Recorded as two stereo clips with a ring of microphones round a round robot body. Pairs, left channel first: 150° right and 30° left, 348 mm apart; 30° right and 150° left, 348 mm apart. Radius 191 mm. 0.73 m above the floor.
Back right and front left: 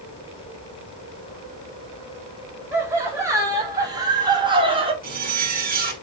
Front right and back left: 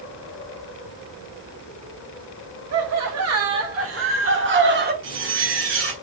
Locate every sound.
2.7 s laughter: 110° left, 2 m; by 4.9 s 100° left, 1.3 m
5.0 s a zipper: 95° left, 1.4 m